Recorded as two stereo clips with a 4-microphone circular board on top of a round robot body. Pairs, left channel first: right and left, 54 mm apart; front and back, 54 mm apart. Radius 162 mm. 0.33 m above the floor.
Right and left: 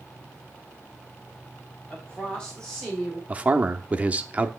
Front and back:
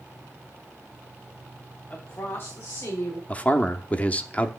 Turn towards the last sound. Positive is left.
turn(degrees=40)